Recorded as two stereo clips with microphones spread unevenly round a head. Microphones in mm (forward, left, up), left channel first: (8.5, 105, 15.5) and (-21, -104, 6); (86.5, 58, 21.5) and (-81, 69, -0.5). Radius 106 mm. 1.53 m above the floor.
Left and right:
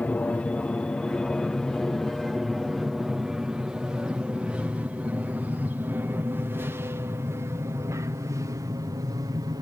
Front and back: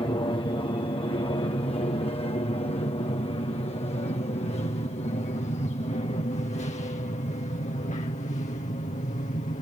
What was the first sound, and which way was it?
An aircraft, 5° left.